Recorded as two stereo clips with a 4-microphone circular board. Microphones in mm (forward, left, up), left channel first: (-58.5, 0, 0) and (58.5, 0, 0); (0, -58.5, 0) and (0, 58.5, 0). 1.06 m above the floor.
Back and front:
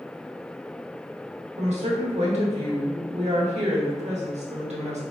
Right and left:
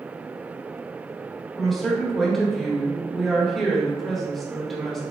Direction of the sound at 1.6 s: Straight ahead.